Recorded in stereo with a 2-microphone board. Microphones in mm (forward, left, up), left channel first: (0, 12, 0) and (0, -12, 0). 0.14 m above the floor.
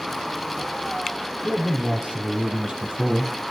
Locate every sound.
1.4 s a man speaking: 60° right (ahead or behind), 6 m; by 3.3 s 55° right (ahead or behind), 5 m